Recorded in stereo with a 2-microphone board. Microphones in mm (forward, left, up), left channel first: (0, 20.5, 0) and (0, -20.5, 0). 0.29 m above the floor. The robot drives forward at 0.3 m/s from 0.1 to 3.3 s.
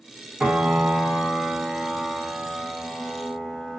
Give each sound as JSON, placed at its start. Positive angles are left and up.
{"t": 0.4, "sound": "a piano", "side_deg": -25, "distance_m": 1.3}